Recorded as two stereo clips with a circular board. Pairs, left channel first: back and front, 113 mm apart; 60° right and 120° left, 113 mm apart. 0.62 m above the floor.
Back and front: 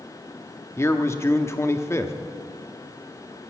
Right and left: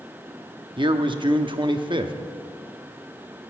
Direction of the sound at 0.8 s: 125° left.